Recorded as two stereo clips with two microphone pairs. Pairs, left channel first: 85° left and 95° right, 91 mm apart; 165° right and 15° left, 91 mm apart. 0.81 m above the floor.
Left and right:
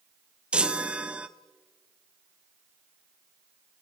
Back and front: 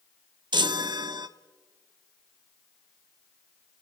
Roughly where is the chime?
Ahead.